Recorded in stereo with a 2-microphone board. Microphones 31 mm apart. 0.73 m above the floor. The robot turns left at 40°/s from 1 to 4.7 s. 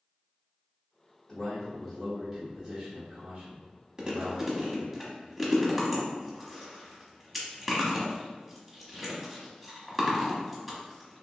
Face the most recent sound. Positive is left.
turn(degrees=0)  # may be behind; listen again after turning